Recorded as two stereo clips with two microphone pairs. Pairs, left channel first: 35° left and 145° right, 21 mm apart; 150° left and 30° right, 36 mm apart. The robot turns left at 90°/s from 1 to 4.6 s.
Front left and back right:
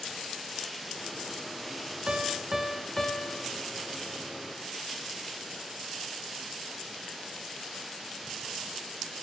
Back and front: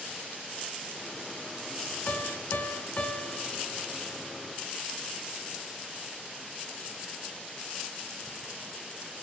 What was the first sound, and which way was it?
A piano, 170° right.